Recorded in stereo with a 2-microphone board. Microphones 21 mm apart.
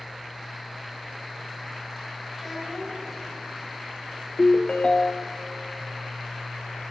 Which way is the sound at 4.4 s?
40° left (ahead or behind).